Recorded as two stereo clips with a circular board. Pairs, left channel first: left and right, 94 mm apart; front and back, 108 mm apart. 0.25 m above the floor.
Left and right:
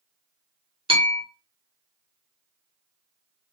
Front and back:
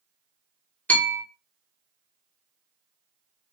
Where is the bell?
75° right, 1.1 m.